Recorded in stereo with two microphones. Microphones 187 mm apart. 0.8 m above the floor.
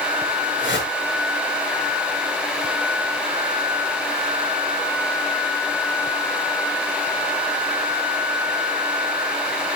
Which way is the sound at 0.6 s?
90° left.